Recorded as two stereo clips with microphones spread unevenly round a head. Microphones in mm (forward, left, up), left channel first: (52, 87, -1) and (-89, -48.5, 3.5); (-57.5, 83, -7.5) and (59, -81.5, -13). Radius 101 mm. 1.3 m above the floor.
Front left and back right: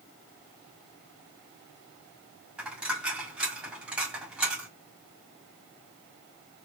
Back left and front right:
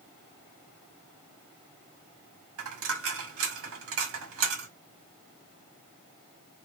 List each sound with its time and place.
2.6 s a dropped coin: 50° right, 1.5 m